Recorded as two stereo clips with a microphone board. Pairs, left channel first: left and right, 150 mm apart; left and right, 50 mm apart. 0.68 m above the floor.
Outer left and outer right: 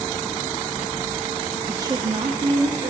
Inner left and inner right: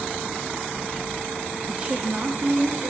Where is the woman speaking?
15° right (ahead or behind), 0.6 m; by 2.9 s 70° right (ahead or behind), 1.5 m.